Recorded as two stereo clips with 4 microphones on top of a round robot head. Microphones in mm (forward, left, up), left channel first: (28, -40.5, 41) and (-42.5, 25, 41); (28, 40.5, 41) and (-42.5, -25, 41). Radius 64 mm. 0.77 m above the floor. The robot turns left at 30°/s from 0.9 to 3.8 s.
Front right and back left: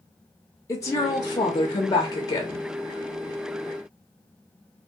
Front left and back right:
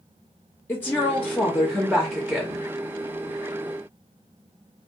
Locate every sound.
0.7 s a woman speaking: 10° right, 0.6 m; by 2.7 s 65° right, 0.6 m